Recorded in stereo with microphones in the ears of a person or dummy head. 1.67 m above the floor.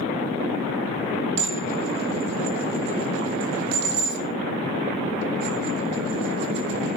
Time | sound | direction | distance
1.4 | dishes clattering | 65° right (ahead or behind) | 1.8 m